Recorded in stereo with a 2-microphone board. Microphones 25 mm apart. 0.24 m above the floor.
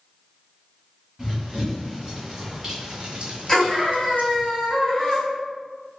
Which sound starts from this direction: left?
A scream, at 3.5 s.